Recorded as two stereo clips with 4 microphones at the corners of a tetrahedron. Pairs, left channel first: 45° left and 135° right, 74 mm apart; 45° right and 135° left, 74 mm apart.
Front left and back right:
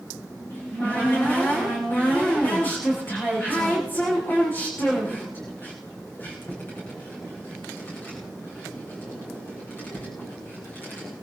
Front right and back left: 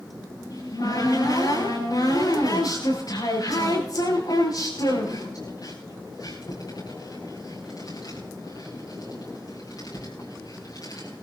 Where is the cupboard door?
15° right, 9.5 m.